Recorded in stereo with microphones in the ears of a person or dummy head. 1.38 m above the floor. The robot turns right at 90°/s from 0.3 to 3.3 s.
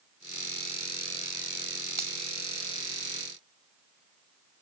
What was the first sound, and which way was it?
A finger snap, 15° right (ahead or behind).